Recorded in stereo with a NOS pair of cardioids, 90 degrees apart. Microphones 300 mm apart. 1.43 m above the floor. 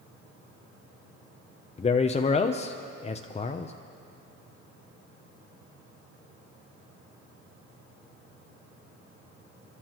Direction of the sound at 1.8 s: 25° left.